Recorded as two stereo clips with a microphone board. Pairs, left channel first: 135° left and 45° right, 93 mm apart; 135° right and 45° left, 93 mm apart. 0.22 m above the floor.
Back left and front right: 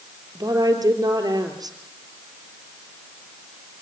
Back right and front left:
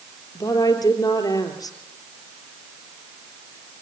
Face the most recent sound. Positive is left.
turn(degrees=-90)